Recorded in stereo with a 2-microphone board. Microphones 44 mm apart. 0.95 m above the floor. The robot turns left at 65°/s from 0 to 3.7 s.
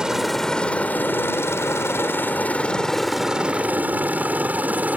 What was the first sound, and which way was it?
A helicopter, 15° right (ahead or behind).